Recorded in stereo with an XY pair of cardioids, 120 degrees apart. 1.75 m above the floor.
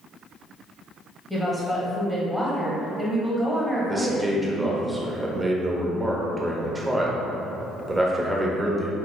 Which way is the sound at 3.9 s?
15° right.